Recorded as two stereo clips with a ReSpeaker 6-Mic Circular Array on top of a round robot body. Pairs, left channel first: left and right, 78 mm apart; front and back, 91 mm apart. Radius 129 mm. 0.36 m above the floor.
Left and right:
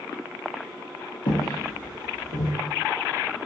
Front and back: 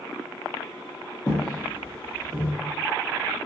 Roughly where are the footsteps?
Left.